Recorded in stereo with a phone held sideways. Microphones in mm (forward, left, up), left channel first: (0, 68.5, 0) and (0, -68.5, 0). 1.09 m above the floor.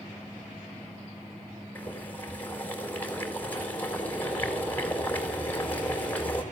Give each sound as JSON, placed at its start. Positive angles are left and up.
{"t": 1.8, "sound": "boiling", "side_deg": 10, "distance_m": 4.5}